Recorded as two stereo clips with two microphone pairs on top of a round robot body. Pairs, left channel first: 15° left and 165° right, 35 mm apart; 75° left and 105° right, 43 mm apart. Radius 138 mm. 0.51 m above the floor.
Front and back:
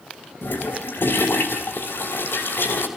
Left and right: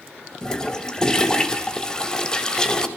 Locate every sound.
0.4 s a toilet flushing: straight ahead, 3 m